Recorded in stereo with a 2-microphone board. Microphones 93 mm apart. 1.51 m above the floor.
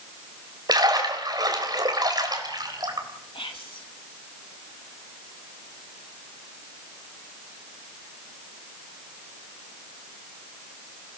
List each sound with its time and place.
0.7 s a splash: 50° right (ahead or behind), 3.5 m
3.3 s whispering: 80° left, 3 m